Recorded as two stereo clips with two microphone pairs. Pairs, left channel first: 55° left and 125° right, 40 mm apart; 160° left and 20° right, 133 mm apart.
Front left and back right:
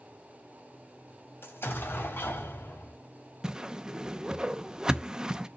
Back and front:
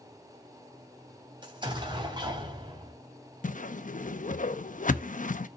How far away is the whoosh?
About 0.6 m.